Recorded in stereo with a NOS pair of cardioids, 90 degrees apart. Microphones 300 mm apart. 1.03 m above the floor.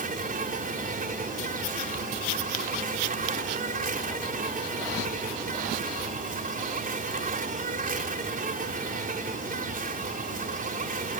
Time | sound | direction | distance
0.0 | an insect | 30° right | ?